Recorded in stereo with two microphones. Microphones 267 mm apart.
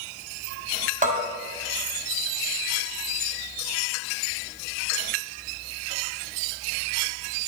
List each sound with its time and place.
1.0 s a bell: 30° right (ahead or behind), 1.6 m